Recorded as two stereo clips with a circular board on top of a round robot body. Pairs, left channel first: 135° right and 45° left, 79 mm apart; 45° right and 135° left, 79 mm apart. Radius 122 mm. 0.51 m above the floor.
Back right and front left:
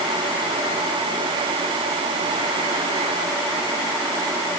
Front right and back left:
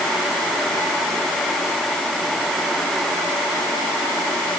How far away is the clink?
I don't hear a clink.